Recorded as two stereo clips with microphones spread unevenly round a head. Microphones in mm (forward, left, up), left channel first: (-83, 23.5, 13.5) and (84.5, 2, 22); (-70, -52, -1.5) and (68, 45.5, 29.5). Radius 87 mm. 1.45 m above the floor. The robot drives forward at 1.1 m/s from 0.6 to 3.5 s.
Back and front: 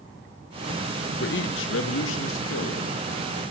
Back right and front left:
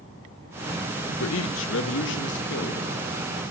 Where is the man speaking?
155° right, 1.0 m; by 3.4 s 175° right, 3.5 m.